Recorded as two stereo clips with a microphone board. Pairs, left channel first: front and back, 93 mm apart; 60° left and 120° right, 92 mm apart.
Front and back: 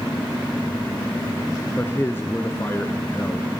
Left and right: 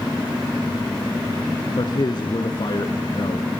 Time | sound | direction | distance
1.8 | a man speaking | 60° left | 1.6 m